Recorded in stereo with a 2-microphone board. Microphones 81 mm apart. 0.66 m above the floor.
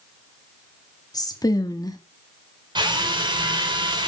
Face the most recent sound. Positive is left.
turn(degrees=-65)  # may be behind; listen again after turning